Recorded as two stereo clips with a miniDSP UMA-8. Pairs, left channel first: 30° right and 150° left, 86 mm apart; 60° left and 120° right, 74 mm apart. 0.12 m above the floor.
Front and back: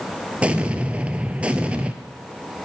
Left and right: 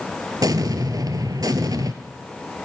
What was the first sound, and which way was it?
An explosion, 135° right.